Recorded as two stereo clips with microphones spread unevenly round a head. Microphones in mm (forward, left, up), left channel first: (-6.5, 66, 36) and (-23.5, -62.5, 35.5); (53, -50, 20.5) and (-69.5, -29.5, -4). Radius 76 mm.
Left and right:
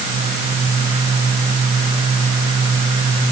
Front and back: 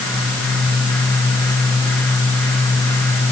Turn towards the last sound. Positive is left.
No sound to turn to.